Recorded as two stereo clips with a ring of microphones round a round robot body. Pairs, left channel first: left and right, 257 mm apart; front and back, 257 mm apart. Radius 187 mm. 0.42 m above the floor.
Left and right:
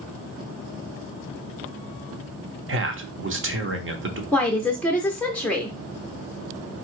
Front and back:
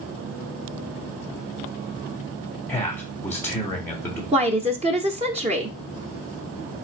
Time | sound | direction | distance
2.7 | a man speaking | 80° right | 1.1 m
4.3 | a woman speaking | 170° left | 0.8 m